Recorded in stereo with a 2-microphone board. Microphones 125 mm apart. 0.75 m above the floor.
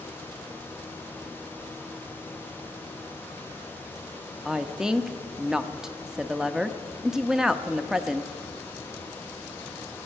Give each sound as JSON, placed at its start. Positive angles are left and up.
{"t": 4.5, "sound": "a woman speaking", "side_deg": -5, "distance_m": 0.6}